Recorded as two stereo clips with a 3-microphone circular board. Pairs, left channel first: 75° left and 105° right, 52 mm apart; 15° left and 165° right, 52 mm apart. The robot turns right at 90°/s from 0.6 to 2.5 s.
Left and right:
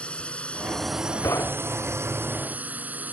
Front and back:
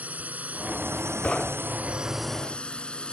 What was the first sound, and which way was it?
A drone, 140° left.